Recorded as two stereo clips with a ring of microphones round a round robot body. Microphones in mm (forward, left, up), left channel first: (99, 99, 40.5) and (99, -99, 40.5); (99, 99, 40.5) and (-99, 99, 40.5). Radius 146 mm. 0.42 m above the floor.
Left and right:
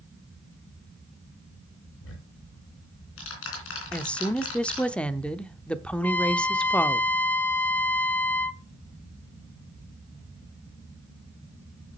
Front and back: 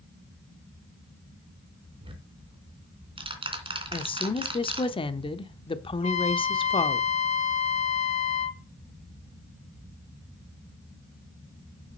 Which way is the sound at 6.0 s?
15° left.